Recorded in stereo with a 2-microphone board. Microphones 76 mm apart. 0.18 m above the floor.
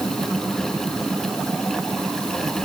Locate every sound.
Only background noise.